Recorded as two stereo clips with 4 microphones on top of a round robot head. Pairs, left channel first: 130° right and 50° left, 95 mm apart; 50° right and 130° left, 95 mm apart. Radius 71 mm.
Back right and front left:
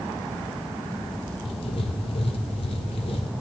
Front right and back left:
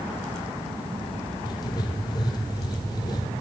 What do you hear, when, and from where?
1.4 s writing: 100° right, 0.7 m